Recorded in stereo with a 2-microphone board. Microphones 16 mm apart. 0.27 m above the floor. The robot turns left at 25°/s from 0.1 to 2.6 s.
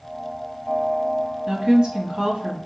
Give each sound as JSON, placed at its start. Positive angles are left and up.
{"t": 1.5, "sound": "a woman speaking", "side_deg": -30, "distance_m": 1.7}